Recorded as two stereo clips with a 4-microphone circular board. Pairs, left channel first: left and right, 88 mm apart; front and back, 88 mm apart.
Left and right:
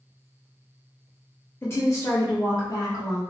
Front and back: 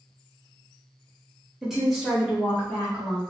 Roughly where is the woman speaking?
Left.